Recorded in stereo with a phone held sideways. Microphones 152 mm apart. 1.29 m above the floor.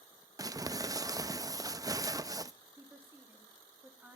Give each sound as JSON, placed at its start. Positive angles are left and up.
{"t": 0.4, "sound": "crumpling", "side_deg": -25, "distance_m": 0.6}
{"t": 2.8, "sound": "a woman speaking", "side_deg": -15, "distance_m": 3.0}